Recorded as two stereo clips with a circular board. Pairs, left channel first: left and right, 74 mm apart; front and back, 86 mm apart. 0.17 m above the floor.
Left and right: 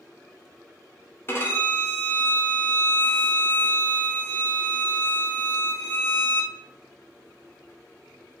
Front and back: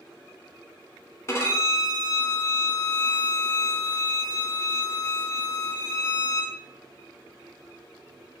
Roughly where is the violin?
Ahead left.